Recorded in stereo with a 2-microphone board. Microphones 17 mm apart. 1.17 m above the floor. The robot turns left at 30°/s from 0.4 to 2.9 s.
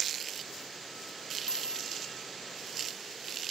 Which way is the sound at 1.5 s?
70° left (ahead or behind).